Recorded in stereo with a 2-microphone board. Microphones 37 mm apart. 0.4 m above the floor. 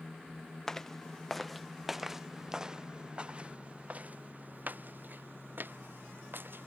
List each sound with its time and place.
0.7 s footsteps: 15° left (ahead or behind); by 6.7 s 70° right (ahead or behind)